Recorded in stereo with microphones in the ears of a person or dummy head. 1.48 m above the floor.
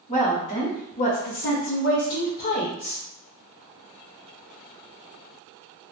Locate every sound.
0.1 s a woman speaking: 35° left (ahead or behind), 1.4 m; by 3.0 s 25° left (ahead or behind), 0.6 m